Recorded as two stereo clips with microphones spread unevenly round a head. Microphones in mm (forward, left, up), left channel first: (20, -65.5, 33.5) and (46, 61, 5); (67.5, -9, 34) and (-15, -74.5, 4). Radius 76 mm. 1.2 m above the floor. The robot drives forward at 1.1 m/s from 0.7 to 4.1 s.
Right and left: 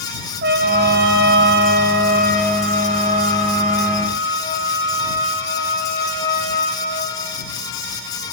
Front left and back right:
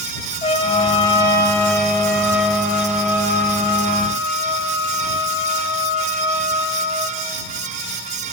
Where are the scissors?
No scissors in this recording.